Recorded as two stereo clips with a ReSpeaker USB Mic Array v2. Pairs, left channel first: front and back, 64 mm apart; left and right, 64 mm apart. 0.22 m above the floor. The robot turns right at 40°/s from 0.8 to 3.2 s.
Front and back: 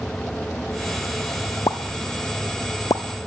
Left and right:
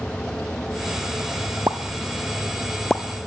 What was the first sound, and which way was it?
A pop, 40° right.